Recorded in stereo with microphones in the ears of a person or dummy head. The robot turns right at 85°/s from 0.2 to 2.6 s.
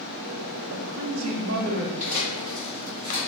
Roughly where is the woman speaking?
Behind right.